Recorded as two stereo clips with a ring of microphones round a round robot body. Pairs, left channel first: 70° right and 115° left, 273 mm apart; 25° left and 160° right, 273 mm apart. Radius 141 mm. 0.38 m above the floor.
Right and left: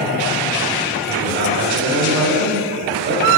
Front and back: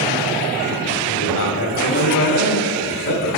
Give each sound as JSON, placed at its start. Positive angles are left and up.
{"t": 1.1, "sound": "a man speaking", "azimuth_deg": 65, "distance_m": 1.8}